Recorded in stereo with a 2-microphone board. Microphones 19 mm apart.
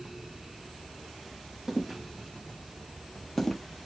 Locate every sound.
1.7 s footsteps: 25° right (ahead or behind), 1.2 m; by 3.6 s 25° left (ahead or behind), 0.8 m